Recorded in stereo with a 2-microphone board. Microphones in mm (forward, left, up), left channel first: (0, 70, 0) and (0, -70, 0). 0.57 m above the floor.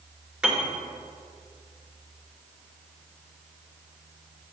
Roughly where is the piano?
Centre.